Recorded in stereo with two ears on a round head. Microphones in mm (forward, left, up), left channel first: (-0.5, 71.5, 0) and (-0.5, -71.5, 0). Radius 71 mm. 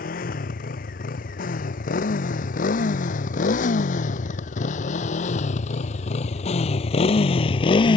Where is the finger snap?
No finger snap in this recording.